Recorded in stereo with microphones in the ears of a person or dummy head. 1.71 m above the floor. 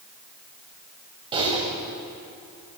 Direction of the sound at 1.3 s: 25° right (ahead or behind).